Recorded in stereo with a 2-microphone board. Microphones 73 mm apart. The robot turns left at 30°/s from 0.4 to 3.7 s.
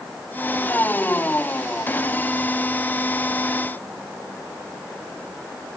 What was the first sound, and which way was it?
Only background noise.